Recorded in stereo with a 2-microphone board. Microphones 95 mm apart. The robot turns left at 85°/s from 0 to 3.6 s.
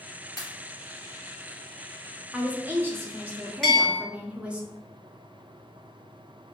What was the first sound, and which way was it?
A pop, 35° left (ahead or behind).